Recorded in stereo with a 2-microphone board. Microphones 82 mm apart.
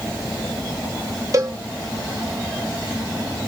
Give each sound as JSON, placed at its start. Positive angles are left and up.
{"t": 1.3, "sound": "a cowbell", "side_deg": -40, "distance_m": 0.9}